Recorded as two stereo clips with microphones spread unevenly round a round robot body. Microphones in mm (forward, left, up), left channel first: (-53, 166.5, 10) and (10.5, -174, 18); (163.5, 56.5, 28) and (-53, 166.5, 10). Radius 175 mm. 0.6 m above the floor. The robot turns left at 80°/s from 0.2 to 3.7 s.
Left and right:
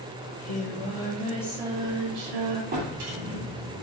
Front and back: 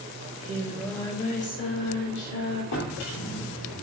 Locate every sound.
0.2 s singing: 115° left, 2 m; by 2.6 s 80° right, 2 m
2.7 s a drawer: 15° right, 3 m; by 3.8 s 90° right, 3 m